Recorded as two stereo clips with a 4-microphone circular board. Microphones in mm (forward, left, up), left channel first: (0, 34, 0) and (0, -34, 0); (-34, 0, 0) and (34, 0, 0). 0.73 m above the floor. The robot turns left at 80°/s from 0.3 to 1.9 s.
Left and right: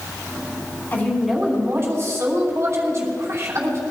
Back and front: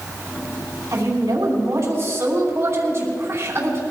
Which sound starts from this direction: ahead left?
A woman speaking, at 0.9 s.